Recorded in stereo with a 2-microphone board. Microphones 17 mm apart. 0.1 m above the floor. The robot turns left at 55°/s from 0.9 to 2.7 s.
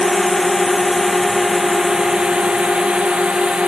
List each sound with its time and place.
0.0 s a drone: 10° left (ahead or behind); by 3.7 s 70° right (ahead or behind)